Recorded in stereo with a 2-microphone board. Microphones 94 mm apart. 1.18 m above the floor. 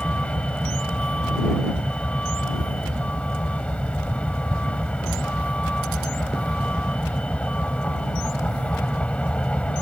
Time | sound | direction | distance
0.0 | a vehicle | 15° left (ahead or behind) | ?